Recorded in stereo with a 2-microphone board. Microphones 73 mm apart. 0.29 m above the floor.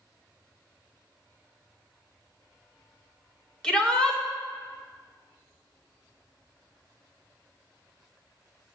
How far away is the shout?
About 0.9 m.